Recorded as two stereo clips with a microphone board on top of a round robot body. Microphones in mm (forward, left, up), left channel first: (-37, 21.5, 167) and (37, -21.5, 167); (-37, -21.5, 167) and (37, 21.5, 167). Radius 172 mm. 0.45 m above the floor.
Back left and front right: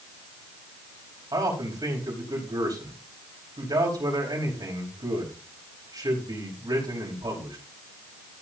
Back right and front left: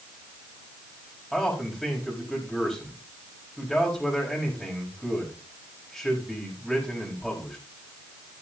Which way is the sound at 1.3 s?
65° right.